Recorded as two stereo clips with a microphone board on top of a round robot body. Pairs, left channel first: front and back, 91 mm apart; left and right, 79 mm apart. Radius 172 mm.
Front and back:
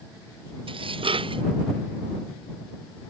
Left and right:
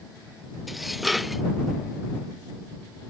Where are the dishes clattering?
Straight behind.